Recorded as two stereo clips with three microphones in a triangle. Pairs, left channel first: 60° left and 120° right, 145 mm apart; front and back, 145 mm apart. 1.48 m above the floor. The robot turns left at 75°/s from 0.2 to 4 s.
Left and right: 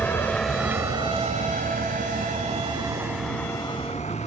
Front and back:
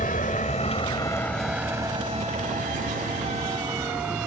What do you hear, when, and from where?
0.0 s a vehicle: 15° right; by 4.3 s 100° left